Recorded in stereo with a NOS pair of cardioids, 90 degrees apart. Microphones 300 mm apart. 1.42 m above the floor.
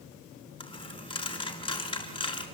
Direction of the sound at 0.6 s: 15° left.